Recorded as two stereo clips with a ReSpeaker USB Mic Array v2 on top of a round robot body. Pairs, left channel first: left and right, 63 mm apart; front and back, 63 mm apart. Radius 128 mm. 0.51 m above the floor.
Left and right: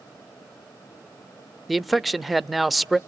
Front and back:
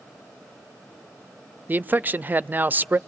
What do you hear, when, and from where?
1.7 s a man speaking: straight behind, 0.8 m